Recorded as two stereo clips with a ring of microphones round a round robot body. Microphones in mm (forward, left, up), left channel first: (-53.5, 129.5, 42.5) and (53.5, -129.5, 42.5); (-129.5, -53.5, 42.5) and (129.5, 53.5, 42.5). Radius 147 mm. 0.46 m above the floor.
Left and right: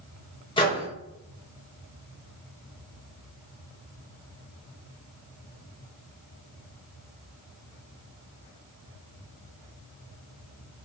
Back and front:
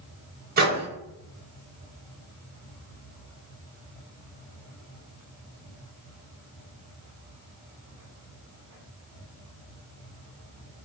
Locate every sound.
0.6 s a microwave: 50° left, 1.3 m